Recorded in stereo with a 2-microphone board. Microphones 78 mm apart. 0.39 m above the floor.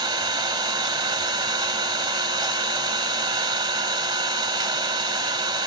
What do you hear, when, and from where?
0.0 s an engine running: 75° right (ahead or behind), 0.8 m